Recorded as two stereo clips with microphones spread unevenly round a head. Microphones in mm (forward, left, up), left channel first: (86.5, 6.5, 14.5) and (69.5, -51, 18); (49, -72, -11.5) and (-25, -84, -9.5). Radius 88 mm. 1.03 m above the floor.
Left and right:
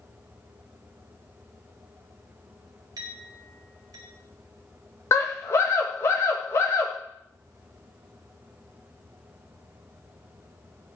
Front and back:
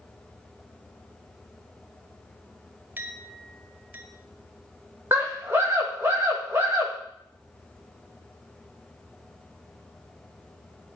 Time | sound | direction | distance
3.0 | a clink | 110° right | 1.8 m
5.1 | a scream | 115° left | 1.5 m